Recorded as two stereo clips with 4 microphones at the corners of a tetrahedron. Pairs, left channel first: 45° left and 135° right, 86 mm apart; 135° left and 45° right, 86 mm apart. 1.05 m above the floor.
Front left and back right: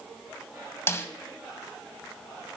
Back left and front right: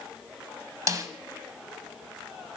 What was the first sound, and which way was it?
A snare drum, 5° right.